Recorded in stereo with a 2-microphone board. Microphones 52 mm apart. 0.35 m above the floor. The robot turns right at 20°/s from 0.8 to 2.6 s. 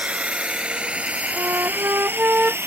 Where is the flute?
55° right (ahead or behind); by 2.6 s 30° right (ahead or behind).